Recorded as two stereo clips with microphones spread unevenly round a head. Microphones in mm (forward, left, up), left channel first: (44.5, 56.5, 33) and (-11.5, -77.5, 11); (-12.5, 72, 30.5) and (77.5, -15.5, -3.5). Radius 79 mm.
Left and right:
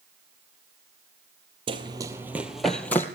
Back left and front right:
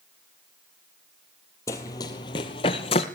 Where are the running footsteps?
170° right, 1.8 m; by 3.0 s 135° left, 1.9 m.